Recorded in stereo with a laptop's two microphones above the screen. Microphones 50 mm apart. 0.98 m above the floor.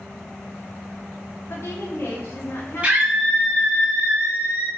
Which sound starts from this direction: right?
A scream, at 2.8 s.